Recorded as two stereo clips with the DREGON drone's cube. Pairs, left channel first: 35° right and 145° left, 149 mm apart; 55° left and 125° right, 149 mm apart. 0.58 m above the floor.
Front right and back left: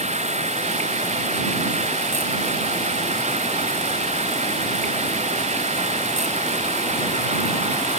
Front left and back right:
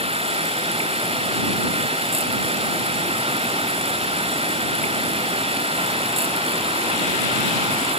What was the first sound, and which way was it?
Running water, 175° right.